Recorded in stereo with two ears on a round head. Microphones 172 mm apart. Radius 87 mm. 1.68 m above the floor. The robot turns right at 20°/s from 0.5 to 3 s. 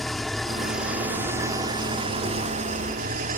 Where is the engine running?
Straight behind; by 3.4 s 130° right.